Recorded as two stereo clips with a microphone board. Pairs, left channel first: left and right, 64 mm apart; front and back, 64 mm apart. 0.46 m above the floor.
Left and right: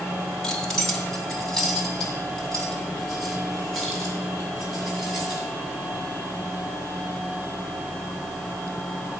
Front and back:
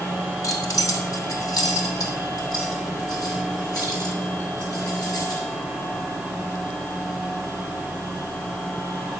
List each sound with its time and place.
0.4 s keys jangling: 10° left, 1.4 m; by 5.4 s 5° left, 5.5 m